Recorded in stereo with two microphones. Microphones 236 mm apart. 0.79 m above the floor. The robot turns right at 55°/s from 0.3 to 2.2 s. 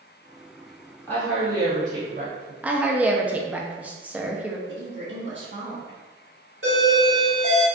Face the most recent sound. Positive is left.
turn(degrees=-55)  # may be behind; listen again after turning